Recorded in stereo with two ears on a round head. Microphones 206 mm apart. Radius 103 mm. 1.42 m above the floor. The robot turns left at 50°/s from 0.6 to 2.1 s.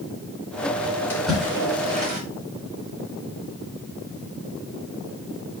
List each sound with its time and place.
1.1 s a splash: 10° left (ahead or behind), 5 m; by 2.2 s 40° right (ahead or behind), 5 m